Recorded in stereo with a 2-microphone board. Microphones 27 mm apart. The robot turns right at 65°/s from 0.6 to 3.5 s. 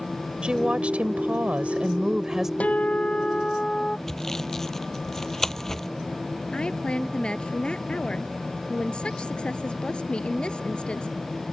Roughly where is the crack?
No crack in this recording.